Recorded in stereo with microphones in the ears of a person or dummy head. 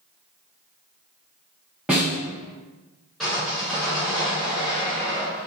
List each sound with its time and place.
1.9 s a snare drum: 5° right (ahead or behind), 0.8 m
3.2 s sawing: 5° left (ahead or behind), 1.6 m